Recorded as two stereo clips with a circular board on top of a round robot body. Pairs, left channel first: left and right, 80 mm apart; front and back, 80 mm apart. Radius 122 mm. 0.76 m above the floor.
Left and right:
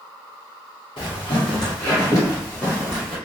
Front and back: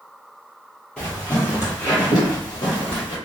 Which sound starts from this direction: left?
Footsteps, at 1.0 s.